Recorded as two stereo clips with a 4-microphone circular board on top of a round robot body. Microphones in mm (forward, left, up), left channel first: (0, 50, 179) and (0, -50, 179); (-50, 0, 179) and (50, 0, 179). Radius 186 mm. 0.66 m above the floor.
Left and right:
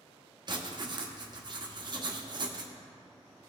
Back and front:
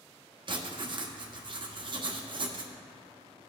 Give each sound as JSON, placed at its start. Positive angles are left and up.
{"t": 0.5, "sound": "writing", "azimuth_deg": -45, "distance_m": 1.2}